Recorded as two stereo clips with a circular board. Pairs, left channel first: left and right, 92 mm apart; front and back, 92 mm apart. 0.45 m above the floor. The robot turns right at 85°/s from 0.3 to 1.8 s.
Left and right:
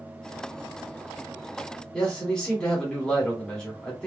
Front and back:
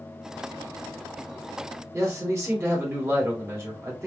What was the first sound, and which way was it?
A man speaking, 165° left.